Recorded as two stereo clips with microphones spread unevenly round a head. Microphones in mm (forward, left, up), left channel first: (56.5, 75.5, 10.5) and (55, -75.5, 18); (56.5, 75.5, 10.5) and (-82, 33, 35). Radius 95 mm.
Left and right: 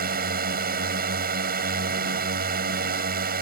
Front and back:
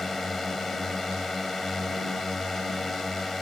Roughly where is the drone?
Right.